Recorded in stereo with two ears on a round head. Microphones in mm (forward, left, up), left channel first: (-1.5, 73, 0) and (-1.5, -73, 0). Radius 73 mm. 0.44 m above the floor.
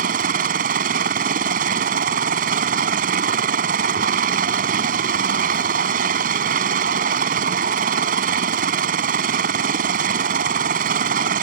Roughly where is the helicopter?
Right.